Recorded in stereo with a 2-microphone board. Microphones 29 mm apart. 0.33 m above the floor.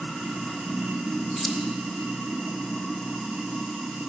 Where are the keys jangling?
5° left (ahead or behind), 0.6 m.